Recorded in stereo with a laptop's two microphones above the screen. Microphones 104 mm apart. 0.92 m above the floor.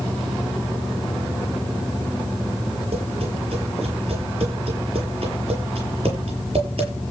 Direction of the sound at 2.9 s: 60° right (ahead or behind).